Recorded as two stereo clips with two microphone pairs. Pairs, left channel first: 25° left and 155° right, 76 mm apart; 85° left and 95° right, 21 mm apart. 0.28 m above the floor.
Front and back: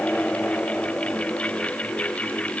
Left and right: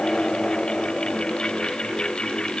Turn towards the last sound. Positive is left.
No sound to turn to.